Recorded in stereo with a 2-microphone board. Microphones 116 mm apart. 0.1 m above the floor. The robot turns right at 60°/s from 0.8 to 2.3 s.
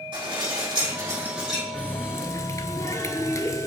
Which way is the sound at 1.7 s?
20° left.